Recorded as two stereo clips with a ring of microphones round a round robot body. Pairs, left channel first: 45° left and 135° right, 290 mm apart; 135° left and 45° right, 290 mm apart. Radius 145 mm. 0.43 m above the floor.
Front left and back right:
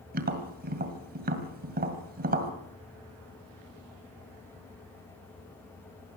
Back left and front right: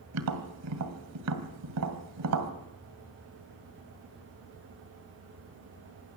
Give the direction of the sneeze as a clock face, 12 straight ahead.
I don't hear a sneeze.